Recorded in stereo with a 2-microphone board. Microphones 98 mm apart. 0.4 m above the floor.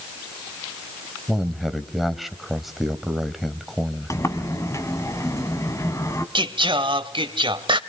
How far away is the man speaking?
About 1.6 m.